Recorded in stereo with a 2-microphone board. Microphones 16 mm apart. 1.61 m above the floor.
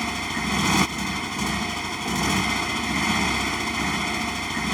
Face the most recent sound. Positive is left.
turn(degrees=10)  # may be behind; listen again after turning